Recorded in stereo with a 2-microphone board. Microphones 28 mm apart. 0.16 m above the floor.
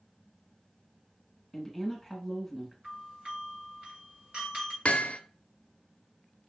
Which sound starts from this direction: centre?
A woman speaking, at 1.5 s.